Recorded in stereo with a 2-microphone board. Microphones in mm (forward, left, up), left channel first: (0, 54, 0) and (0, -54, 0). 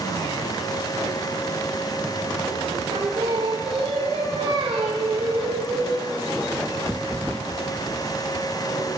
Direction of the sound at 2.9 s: 70° right (ahead or behind).